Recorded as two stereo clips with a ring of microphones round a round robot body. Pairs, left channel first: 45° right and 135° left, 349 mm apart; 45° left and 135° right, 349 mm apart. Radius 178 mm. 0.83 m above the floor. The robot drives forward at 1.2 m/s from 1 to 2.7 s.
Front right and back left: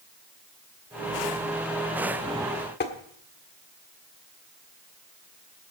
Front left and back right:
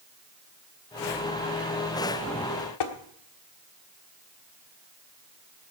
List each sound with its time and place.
2.8 s tapping: 20° left, 1.4 m